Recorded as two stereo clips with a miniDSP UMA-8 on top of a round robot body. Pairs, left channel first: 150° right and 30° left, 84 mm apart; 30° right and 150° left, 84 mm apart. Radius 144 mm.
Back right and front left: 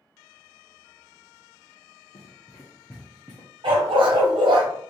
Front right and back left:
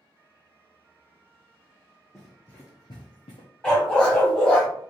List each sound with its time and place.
2.1 s running footsteps: 120° right, 0.7 m; by 3.5 s 25° right, 0.6 m
3.6 s a dog barking: 50° left, 1.0 m